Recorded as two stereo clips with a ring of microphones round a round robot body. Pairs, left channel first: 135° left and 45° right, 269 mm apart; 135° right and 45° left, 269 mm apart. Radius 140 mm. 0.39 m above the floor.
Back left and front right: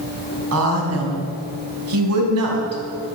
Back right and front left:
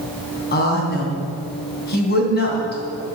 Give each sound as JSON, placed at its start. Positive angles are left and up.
{"t": 0.5, "sound": "a woman speaking", "azimuth_deg": -80, "distance_m": 3.5}